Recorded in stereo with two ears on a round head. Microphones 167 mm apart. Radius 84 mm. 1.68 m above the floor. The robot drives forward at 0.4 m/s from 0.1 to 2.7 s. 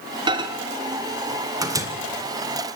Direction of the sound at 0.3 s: 25° right (ahead or behind).